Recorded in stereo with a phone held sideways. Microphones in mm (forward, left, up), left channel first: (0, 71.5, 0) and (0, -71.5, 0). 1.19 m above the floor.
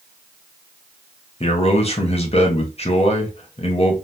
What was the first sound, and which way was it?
A man speaking, 45° left (ahead or behind).